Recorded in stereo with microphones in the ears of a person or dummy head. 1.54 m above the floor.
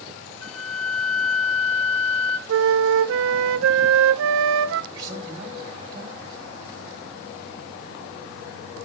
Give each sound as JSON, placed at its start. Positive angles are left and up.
{"t": 0.4, "sound": "a flute", "side_deg": 75, "distance_m": 0.5}
{"t": 2.5, "sound": "a flute", "side_deg": -80, "distance_m": 0.5}
{"t": 4.9, "sound": "a man speaking", "side_deg": -20, "distance_m": 3.5}